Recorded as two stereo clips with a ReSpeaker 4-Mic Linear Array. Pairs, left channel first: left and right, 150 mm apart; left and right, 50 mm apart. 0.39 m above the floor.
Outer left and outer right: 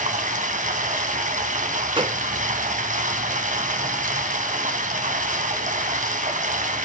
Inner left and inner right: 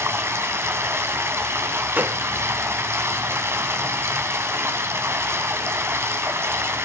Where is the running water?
55° right (ahead or behind), 2.5 m.